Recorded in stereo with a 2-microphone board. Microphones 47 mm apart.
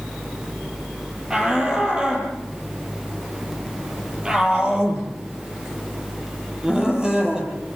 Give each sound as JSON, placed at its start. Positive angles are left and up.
{"t": 1.3, "sound": "a shout", "side_deg": -15, "distance_m": 8.5}